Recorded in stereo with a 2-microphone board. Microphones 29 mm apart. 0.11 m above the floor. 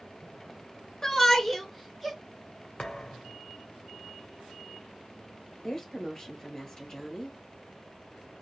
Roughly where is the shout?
Centre.